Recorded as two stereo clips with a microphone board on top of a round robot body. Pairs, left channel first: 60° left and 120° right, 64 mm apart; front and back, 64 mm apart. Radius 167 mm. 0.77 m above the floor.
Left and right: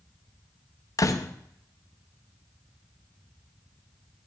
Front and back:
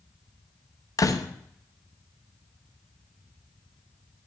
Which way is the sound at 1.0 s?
30° left.